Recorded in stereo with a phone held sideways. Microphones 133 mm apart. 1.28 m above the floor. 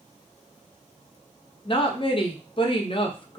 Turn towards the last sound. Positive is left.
turn(degrees=45)  # may be behind; listen again after turning